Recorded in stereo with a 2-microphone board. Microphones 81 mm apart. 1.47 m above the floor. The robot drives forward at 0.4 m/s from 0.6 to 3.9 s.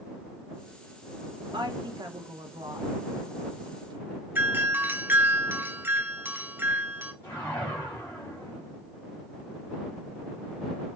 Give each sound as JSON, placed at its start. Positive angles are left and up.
{"t": 1.5, "sound": "a woman speaking", "side_deg": -70, "distance_m": 1.3}
{"t": 4.3, "sound": "a doorbell", "side_deg": -25, "distance_m": 0.6}
{"t": 7.2, "sound": "a whoosh", "side_deg": 25, "distance_m": 3.0}